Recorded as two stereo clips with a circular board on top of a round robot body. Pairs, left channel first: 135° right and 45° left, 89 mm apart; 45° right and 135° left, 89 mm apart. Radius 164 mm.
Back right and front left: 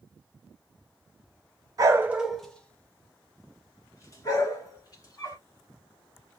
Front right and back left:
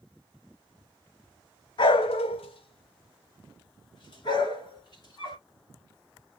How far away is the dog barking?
About 0.5 m.